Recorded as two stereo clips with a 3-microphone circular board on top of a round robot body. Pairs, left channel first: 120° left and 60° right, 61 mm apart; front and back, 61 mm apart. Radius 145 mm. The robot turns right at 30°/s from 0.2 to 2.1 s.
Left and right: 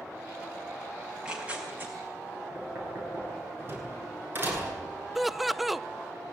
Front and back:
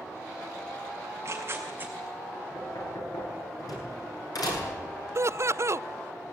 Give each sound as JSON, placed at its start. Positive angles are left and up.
{"t": 1.0, "sound": "tearing paper", "azimuth_deg": -145, "distance_m": 6.0}
{"t": 2.5, "sound": "knocking", "azimuth_deg": -10, "distance_m": 9.0}
{"t": 5.2, "sound": "laughter", "azimuth_deg": -150, "distance_m": 0.7}